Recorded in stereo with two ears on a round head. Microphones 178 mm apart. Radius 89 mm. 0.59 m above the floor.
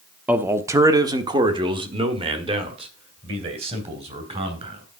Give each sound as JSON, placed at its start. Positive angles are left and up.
{"t": 0.3, "sound": "a man speaking", "side_deg": -10, "distance_m": 0.8}